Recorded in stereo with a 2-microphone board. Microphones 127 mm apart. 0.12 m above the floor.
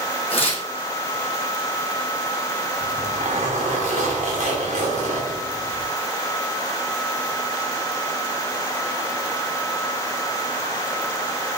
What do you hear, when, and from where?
0.3 s tearing paper: 45° left (ahead or behind), 1.3 m
2.8 s a zipper: 65° right (ahead or behind), 1.9 m